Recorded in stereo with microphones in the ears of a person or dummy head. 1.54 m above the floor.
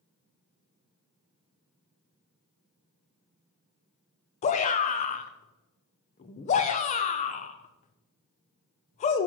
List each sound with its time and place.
4.4 s a shout: 35° left (ahead or behind), 0.6 m